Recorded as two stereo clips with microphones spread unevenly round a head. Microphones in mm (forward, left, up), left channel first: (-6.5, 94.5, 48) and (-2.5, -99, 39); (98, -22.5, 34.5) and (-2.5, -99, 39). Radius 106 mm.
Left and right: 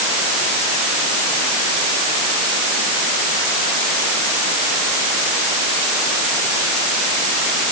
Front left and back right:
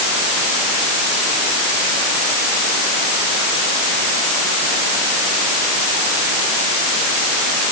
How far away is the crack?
I don't hear a crack.